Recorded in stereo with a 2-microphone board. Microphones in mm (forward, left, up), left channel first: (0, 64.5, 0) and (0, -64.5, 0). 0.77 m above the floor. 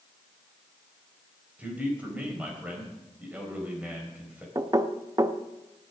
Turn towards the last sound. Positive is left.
turn(degrees=-30)  # may be behind; listen again after turning